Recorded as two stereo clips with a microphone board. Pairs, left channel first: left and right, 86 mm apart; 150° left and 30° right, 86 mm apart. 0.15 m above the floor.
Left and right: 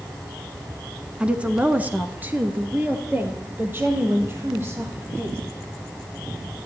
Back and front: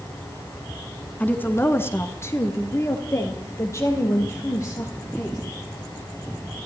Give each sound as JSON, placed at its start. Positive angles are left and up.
{"t": 1.2, "sound": "a woman speaking", "azimuth_deg": -160, "distance_m": 1.1}